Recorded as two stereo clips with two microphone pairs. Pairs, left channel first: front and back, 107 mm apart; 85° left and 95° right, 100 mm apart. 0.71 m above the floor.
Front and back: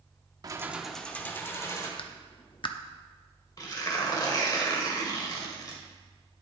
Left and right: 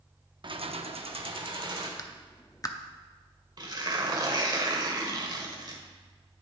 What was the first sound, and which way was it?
Keys jangling, 130° right.